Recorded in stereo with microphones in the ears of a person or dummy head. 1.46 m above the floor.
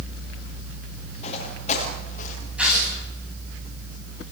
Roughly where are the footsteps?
Left.